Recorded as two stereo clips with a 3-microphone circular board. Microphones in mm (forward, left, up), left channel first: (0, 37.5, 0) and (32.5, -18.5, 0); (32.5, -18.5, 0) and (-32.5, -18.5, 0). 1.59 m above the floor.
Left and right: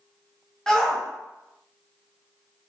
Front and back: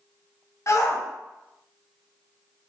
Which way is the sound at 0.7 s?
40° left.